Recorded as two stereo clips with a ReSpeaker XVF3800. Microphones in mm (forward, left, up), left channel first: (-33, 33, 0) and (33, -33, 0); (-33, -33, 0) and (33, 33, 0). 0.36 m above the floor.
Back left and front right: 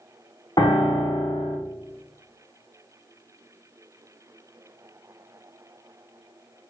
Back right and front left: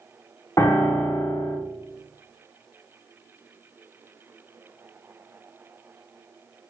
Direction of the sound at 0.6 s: 175° left.